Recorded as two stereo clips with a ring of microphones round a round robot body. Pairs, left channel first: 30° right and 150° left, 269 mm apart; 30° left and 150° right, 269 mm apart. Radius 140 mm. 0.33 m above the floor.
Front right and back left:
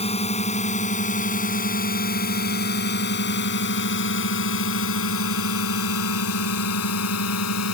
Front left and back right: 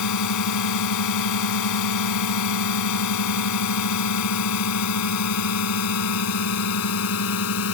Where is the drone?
40° left; by 7.8 s 5° right.